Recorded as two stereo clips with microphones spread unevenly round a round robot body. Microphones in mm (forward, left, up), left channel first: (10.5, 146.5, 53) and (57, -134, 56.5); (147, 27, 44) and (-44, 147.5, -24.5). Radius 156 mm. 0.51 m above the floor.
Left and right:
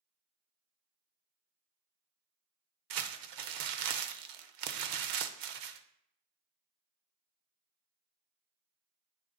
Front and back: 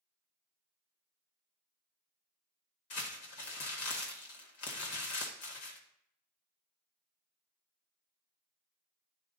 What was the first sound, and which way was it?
Crumpling, 80° right.